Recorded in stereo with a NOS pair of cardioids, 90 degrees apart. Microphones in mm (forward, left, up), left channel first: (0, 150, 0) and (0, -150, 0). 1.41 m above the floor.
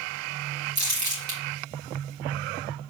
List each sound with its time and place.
0.8 s crumpling: 65° right, 2 m